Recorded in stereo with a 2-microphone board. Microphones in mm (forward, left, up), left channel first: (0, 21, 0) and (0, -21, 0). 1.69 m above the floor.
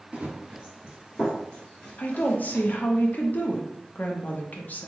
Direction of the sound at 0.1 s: 30° right (ahead or behind).